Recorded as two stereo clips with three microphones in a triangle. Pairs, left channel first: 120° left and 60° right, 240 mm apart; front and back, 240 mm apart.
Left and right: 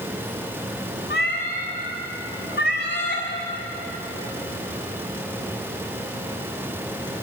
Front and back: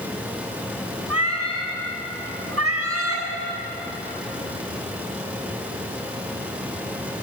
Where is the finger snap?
No finger snap in this recording.